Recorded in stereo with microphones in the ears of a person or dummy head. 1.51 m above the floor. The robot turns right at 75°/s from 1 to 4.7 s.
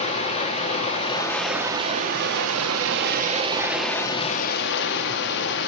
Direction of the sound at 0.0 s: 150° left.